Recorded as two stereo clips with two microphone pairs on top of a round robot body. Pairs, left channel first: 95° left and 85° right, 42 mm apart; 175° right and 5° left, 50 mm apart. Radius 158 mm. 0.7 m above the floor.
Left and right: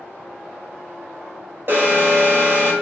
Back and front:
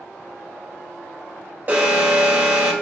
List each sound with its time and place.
1.7 s an alarm: 50° right, 2.5 m